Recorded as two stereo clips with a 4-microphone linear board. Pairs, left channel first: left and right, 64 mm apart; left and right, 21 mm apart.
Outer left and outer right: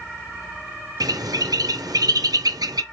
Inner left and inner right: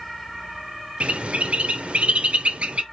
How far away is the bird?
About 0.5 m.